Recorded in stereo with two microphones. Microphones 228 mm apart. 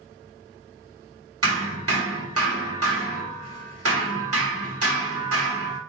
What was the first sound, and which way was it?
Hammering, 80° right.